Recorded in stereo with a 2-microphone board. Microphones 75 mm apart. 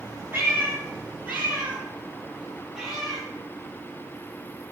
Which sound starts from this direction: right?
A cat meowing, at 0.3 s.